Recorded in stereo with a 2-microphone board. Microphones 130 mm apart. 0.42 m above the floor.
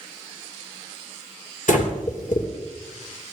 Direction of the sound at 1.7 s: 75° left (ahead or behind).